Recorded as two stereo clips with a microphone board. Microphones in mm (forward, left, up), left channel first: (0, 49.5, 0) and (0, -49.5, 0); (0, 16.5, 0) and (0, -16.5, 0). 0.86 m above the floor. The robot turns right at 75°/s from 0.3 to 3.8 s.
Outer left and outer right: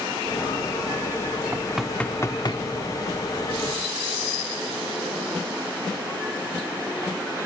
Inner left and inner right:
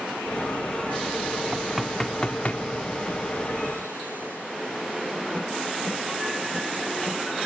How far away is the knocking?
About 1.2 m.